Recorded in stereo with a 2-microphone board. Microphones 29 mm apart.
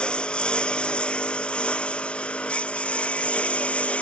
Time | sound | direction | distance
0.0 | a lawn mower | 30° left (ahead or behind) | ?